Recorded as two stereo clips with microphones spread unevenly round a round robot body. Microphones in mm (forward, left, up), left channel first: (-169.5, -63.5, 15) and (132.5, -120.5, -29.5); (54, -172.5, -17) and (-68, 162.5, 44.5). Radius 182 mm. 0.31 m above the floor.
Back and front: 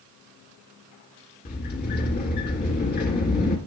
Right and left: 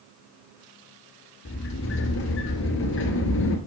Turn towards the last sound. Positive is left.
turn(degrees=-130)